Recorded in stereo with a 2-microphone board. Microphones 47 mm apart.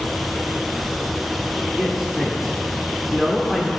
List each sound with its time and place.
1.8 s a man speaking: 5° right (ahead or behind), 1.3 m